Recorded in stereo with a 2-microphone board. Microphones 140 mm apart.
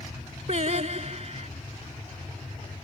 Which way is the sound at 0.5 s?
55° right (ahead or behind).